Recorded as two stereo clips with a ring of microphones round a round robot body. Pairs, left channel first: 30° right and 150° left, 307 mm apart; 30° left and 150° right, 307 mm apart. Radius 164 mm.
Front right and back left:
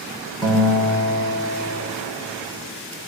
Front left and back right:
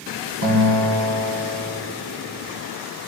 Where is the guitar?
110° right, 8.5 m.